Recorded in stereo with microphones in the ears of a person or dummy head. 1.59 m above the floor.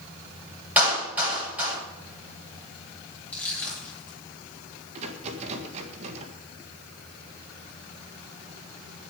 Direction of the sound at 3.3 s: 10° left (ahead or behind).